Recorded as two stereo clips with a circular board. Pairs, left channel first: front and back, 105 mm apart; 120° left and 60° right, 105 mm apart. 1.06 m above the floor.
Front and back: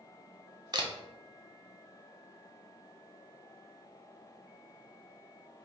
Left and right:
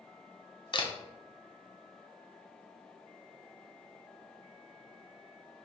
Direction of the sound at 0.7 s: 145° left.